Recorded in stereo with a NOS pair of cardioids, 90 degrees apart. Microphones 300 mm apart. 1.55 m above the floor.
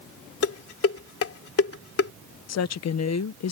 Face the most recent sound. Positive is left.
turn(degrees=60)